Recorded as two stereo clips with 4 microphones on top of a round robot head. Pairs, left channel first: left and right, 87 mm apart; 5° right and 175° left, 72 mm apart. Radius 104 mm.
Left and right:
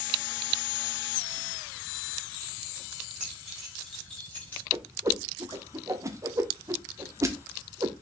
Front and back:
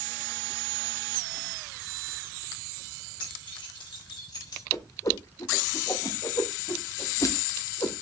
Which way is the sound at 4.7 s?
40° right.